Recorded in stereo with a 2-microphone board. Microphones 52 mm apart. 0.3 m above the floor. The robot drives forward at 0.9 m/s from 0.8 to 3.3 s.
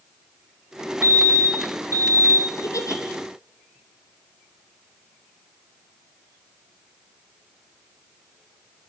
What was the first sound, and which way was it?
A fire alarm, 60° right (ahead or behind).